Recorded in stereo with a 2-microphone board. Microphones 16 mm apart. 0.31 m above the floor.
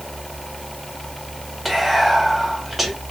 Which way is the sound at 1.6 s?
10° left (ahead or behind).